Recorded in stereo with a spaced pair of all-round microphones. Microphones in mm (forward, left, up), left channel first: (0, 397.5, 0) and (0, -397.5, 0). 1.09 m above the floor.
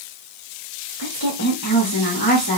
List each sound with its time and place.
1.0 s a woman speaking: 25° left (ahead or behind), 1.2 m